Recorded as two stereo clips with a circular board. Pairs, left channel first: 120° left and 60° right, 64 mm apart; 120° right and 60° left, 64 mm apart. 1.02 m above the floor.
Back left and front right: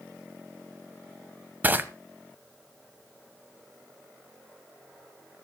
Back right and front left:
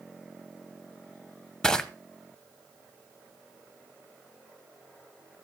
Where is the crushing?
50° right, 0.9 m.